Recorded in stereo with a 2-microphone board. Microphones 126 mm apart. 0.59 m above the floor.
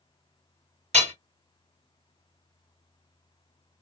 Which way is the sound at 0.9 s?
65° right (ahead or behind).